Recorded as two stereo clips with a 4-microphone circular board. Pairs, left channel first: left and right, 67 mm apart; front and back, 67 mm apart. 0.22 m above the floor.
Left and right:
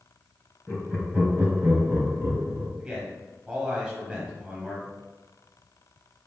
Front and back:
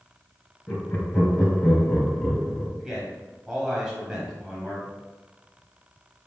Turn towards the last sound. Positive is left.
turn(degrees=-130)